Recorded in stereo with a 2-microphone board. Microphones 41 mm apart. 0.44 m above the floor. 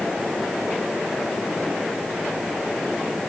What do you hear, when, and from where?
Only background noise.